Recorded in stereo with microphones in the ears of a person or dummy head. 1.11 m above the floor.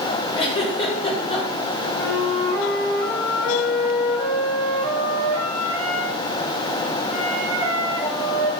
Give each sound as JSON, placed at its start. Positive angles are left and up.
{"t": 0.3, "sound": "a giggle", "side_deg": 30, "distance_m": 2.5}
{"t": 2.0, "sound": "a flute", "side_deg": 10, "distance_m": 5.0}